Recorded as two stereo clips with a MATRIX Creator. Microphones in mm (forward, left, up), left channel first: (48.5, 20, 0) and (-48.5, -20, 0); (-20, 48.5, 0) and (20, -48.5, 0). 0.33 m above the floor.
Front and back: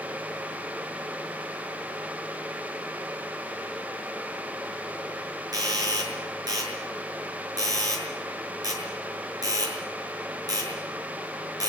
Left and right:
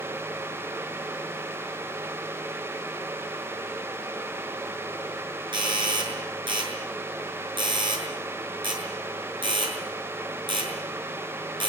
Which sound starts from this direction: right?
A doorbell, at 5.5 s.